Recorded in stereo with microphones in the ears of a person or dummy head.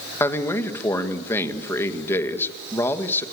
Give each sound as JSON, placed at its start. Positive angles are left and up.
{"t": 0.2, "sound": "a man speaking", "side_deg": 20, "distance_m": 1.8}